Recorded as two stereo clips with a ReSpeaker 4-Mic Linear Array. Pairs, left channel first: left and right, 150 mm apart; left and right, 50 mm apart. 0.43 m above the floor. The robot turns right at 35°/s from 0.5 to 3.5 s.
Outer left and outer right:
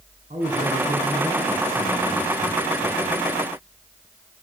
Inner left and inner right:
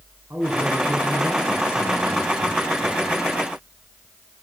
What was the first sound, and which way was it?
A man speaking, 60° right.